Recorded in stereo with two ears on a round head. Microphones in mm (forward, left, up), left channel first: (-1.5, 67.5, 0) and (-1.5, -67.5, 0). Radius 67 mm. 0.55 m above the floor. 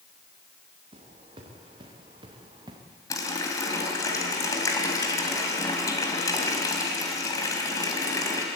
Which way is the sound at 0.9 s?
35° right (ahead or behind).